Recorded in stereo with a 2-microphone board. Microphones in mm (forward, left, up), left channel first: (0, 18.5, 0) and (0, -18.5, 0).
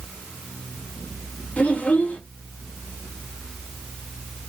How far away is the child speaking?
About 1.0 m.